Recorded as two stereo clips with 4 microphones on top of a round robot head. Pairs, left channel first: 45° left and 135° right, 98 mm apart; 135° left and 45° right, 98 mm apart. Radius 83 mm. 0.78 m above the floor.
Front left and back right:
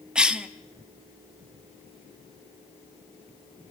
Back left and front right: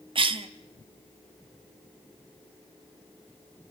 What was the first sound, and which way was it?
A cough, 55° right.